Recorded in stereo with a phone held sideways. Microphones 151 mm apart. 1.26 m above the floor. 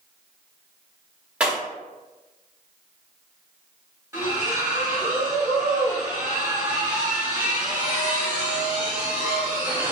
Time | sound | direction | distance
1.4 | breaking glass | 10° right (ahead or behind) | 1.1 m
4.1 | a splash | 20° right (ahead or behind) | 1.1 m